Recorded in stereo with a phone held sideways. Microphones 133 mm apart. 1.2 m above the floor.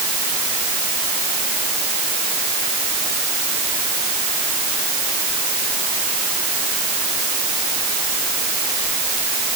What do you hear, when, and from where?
Only background noise.